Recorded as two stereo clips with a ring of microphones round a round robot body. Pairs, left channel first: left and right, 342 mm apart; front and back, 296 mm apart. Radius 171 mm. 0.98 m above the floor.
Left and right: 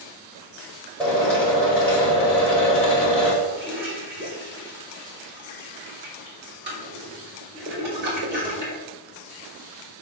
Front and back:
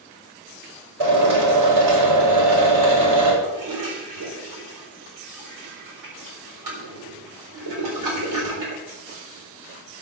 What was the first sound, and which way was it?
A drill, 175° left.